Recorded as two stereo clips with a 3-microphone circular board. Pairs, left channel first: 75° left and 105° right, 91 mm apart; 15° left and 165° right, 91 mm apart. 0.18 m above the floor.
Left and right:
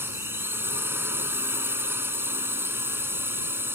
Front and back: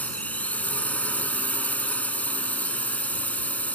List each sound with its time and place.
0.0 s a drone: 50° right